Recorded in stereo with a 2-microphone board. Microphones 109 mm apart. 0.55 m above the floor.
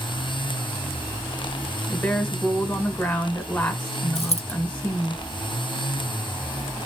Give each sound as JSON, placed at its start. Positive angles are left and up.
{"t": 1.9, "sound": "a woman speaking", "side_deg": 10, "distance_m": 1.8}
{"t": 4.2, "sound": "a dropped coin", "side_deg": 70, "distance_m": 0.7}